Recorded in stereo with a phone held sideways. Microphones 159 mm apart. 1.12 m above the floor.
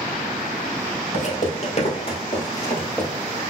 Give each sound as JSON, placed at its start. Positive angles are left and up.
{"t": 1.1, "sound": "footsteps", "side_deg": 55, "distance_m": 1.8}